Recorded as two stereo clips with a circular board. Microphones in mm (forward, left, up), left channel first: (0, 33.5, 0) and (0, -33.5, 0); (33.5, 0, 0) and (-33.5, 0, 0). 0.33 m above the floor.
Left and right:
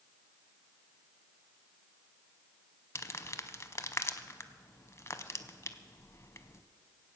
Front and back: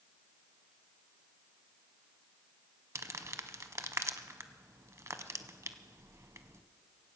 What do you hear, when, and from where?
3.0 s crumpling: 135° left, 0.6 m